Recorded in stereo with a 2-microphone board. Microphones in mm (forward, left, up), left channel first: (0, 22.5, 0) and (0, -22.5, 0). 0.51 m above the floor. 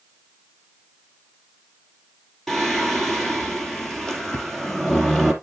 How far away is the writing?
No writing in this recording.